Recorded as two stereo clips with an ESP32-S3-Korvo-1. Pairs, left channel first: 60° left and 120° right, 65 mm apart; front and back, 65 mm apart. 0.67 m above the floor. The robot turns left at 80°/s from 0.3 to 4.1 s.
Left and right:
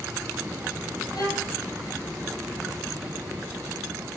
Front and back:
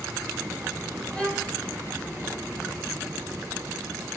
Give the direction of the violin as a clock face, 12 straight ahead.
10 o'clock.